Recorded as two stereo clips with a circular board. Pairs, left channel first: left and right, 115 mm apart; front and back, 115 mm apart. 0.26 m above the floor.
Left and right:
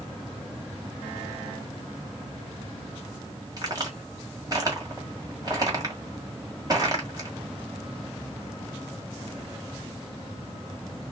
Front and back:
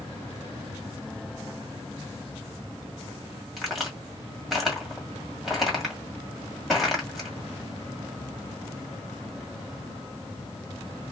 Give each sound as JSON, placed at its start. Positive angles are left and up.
{"t": 3.6, "sound": "a crack", "azimuth_deg": -90, "distance_m": 1.7}